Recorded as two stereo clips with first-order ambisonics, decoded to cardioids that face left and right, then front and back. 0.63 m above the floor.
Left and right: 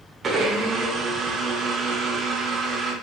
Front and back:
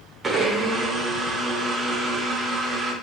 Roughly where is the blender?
Behind right.